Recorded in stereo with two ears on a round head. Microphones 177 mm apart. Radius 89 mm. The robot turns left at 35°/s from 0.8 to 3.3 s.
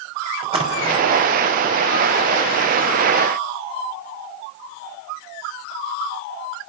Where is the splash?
30° right (ahead or behind), 5 m; by 1.1 s 20° right (ahead or behind), 5 m.